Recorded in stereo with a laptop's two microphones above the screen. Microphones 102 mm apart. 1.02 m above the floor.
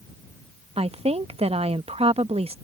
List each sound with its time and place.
0.8 s a woman speaking: 75° right (ahead or behind)